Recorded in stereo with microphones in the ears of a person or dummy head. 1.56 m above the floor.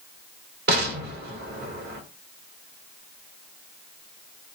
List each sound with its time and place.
0.7 s an explosion: 60° right (ahead or behind), 1.1 m